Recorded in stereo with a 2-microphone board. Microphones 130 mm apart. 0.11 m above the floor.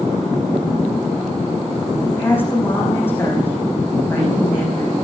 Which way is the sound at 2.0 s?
15° left (ahead or behind).